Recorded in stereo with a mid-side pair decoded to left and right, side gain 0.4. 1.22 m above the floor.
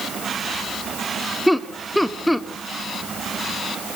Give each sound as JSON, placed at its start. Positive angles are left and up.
{"t": 1.5, "sound": "laughter", "azimuth_deg": 0, "distance_m": 2.5}